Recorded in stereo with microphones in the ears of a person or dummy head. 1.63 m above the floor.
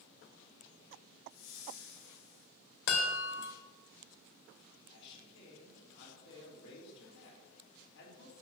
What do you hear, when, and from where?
1.3 s a whoosh: 80° left, 4.5 m
2.9 s a chime: 60° left (ahead or behind), 2.5 m
4.9 s a man speaking: 65° left (ahead or behind), 4.5 m